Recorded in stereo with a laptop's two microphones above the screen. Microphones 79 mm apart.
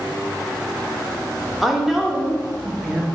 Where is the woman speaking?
Centre (ahead or behind), 0.8 m.